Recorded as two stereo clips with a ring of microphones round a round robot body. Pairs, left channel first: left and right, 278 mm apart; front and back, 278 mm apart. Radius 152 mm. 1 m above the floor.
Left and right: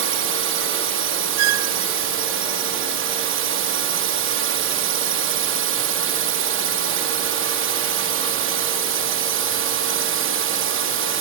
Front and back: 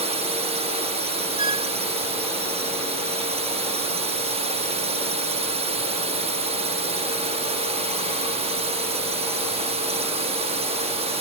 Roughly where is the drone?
Behind right.